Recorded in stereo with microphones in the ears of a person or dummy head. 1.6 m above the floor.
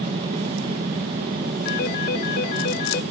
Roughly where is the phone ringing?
Left.